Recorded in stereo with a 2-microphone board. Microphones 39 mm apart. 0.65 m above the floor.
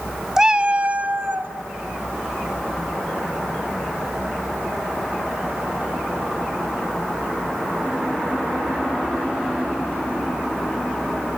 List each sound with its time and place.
0.4 s a cat meowing: 15° right (ahead or behind), 0.9 m; by 1.5 s 50° right (ahead or behind), 1.7 m